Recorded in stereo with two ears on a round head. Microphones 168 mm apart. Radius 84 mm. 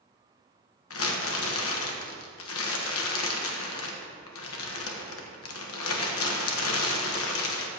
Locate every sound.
0.9 s crumpling: 80° left, 1.3 m